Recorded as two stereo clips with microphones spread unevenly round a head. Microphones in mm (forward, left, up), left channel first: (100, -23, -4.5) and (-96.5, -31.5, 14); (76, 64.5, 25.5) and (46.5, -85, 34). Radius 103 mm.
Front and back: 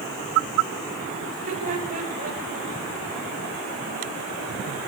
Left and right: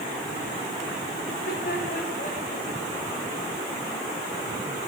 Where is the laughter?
125° left, 5.5 m; by 2.7 s 130° left, 7 m.